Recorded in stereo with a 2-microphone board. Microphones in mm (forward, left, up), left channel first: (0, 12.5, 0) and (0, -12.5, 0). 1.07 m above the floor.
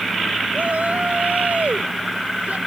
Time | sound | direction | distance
0.5 | a shout | 85° right | ?